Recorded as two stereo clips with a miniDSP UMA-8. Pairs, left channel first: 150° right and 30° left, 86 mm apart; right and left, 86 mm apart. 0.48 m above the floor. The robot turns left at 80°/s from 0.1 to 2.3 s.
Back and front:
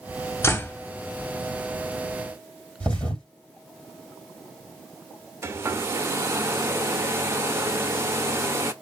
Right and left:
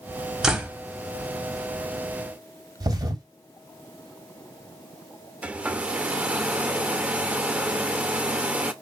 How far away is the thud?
About 2.5 m.